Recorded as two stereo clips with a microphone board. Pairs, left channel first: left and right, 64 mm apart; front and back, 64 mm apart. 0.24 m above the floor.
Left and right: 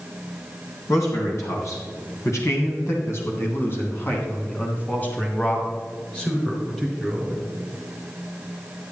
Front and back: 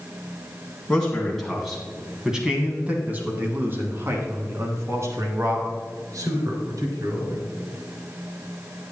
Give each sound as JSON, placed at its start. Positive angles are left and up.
{"t": 0.9, "sound": "a man speaking", "azimuth_deg": 75, "distance_m": 2.0}